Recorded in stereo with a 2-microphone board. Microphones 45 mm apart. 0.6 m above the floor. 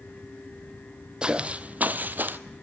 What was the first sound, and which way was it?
Footsteps, 20° right (ahead or behind).